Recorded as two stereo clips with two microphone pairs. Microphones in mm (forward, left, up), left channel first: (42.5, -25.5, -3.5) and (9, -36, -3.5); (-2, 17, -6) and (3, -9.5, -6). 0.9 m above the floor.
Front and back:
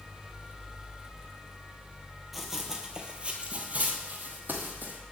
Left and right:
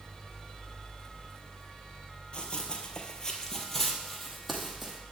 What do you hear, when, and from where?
2.3 s running footsteps: 105° left, 1.1 m; by 5.0 s 170° right, 1.8 m